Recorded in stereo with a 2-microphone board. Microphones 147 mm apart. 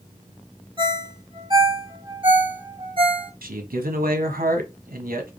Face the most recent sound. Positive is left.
turn(degrees=-85)